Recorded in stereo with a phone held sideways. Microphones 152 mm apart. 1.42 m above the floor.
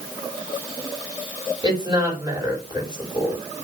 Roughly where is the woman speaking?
Right.